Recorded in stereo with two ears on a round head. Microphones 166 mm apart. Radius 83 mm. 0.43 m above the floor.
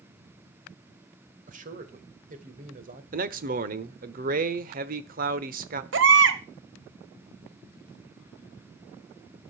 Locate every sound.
1.5 s a man speaking: 45° right (ahead or behind), 1.8 m
3.1 s a man speaking: 45° right (ahead or behind), 1.0 m
5.9 s a baby crying: 65° right (ahead or behind), 1.3 m